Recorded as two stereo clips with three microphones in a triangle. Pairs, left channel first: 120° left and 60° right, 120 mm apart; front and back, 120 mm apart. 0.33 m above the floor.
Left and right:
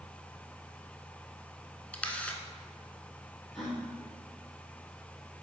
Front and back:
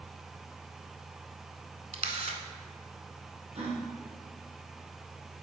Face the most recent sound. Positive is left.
turn(degrees=-155)